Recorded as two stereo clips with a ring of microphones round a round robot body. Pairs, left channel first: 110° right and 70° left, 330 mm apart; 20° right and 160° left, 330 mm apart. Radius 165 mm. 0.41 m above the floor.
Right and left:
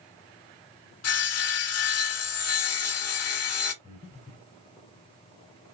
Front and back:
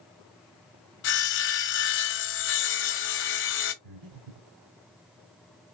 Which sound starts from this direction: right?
Sawing, at 1.0 s.